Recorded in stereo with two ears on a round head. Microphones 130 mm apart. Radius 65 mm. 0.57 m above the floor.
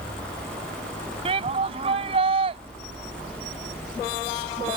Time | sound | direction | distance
1.2 | a shout | 40° right (ahead or behind) | ?